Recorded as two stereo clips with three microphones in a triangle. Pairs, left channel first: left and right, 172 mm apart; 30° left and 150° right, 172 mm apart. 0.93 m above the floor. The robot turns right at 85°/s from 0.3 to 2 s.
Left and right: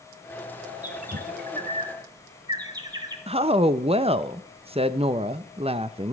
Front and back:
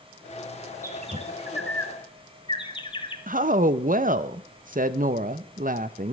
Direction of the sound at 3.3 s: 140° right.